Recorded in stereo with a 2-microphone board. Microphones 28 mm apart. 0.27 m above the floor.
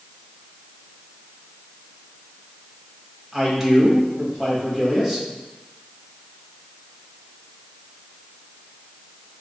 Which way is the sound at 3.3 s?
5° right (ahead or behind).